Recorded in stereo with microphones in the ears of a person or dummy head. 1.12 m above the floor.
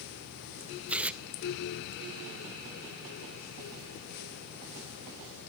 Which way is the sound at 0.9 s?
10° right (ahead or behind).